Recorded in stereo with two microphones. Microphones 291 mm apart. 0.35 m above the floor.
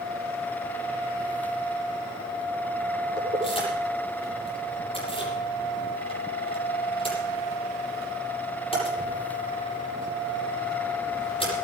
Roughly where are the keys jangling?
Centre.